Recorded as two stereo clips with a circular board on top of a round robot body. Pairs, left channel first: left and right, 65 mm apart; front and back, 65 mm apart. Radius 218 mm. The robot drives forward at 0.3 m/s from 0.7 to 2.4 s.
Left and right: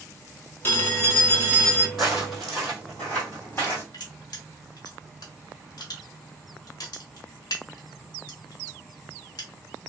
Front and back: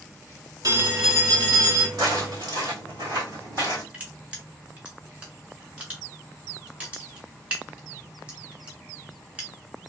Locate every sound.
0.6 s a phone ringing: 145° left, 1.3 m; by 1.9 s 155° left, 1.6 m
2.0 s footsteps: 175° right, 1.8 m; by 3.8 s 140° left, 1.3 m
3.9 s crushing: 110° left, 0.9 m